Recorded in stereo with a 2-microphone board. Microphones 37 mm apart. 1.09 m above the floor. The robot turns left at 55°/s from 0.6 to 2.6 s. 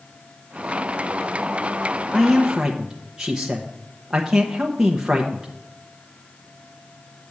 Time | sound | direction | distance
2.1 | a man speaking | 5° left (ahead or behind) | 0.9 m